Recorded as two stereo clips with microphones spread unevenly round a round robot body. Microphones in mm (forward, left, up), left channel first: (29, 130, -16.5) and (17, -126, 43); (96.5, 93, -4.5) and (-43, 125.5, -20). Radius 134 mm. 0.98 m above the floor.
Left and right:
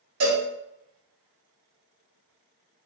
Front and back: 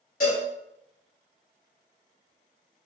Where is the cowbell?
60° right, 2 m.